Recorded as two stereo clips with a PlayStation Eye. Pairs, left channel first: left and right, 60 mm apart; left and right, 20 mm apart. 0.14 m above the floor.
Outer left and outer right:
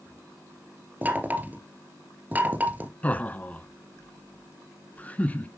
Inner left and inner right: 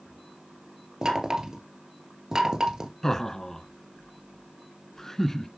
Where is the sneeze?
No sneeze in this recording.